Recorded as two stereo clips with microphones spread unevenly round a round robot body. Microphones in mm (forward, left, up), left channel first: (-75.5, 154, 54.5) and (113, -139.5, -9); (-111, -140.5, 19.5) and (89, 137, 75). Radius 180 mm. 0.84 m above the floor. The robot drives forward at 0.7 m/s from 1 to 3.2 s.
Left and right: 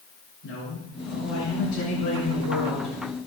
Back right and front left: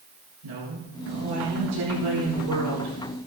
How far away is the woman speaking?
About 8.5 m.